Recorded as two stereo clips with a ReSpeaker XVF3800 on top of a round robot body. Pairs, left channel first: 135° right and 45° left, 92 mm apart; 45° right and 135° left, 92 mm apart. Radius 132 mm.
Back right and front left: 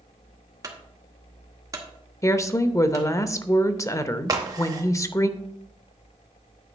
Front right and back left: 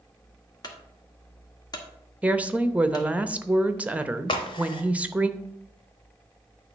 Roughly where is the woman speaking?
Behind.